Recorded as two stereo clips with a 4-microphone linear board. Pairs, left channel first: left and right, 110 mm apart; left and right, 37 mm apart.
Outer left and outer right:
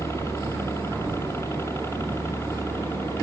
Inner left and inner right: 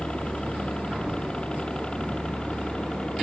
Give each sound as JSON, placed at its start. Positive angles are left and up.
{"t": 0.0, "sound": "a helicopter", "side_deg": 25}